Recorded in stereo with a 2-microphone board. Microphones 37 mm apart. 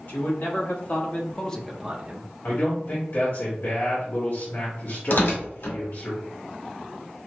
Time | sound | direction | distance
0.1 | a man speaking | 60° left (ahead or behind) | 2.0 m
2.4 | a man speaking | 65° left (ahead or behind) | 2 m
5.1 | tearing paper | 70° left (ahead or behind) | 1.7 m